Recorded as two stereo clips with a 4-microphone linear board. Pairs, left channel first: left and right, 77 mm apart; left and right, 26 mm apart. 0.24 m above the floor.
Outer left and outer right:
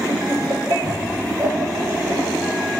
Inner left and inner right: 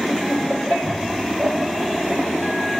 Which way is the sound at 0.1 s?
50° right (ahead or behind).